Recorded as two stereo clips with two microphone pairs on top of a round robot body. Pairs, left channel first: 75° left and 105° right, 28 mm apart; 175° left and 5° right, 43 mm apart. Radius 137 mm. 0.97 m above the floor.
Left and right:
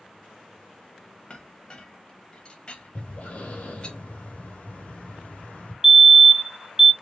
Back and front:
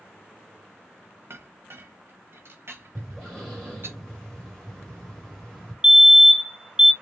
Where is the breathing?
90° left, 1.6 m.